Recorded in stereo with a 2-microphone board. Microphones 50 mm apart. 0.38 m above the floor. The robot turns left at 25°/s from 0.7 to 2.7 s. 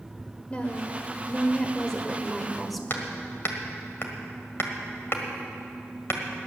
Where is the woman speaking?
50° left, 1.5 m; by 2.8 s straight ahead, 1.5 m.